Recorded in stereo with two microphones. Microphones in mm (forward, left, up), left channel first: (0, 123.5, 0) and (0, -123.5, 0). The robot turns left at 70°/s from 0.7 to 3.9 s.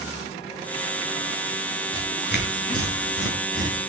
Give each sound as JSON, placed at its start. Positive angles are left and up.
{"t": 1.9, "sound": "tearing paper", "side_deg": 20, "distance_m": 5.0}